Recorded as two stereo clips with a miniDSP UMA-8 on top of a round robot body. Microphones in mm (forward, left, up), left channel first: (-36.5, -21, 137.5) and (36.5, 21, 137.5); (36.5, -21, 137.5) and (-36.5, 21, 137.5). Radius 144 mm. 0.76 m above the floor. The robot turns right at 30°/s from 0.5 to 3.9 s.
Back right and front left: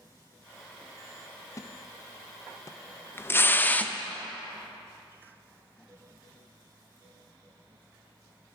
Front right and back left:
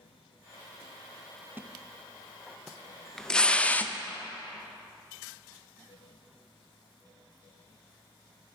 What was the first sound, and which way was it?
A splash, 160° right.